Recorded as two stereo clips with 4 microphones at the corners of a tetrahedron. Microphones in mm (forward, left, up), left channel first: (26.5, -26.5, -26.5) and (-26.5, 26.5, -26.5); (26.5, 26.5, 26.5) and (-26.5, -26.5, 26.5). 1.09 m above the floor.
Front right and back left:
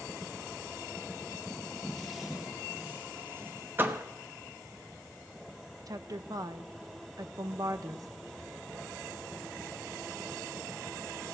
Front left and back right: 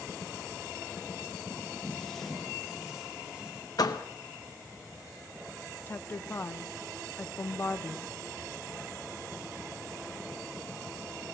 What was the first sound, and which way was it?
Footsteps, 10° left.